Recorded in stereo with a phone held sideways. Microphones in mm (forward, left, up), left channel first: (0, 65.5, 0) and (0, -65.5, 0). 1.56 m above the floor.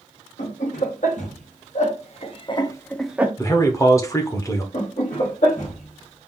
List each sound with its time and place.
0.4 s laughter: 75° left (ahead or behind), 1.9 m; by 3.3 s 15° right (ahead or behind), 0.6 m
3.4 s a man speaking: 25° left (ahead or behind), 0.9 m
4.7 s laughter: 70° left (ahead or behind), 2.0 m